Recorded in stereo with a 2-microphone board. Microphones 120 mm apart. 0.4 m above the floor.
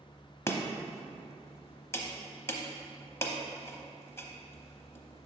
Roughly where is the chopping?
Left.